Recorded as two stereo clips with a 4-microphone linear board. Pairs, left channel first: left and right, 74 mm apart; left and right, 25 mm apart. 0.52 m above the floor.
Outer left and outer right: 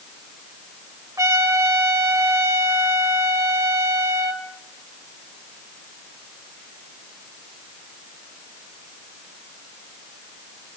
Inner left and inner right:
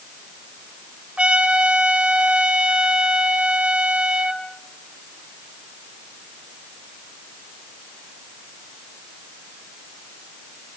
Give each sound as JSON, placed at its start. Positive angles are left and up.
{"t": 1.2, "sound": "a trumpet", "side_deg": -45, "distance_m": 2.0}